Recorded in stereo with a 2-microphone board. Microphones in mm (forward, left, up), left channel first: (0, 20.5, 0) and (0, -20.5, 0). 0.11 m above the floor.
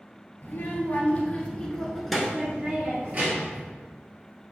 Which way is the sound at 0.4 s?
40° left (ahead or behind).